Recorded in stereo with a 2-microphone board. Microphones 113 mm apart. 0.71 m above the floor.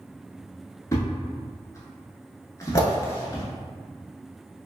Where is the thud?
30° left (ahead or behind), 0.7 m.